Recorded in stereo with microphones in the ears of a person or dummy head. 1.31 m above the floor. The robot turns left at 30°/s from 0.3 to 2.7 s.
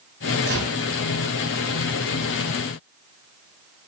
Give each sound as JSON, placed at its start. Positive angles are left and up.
{"t": 0.5, "sound": "a gunshot", "side_deg": -60, "distance_m": 6.0}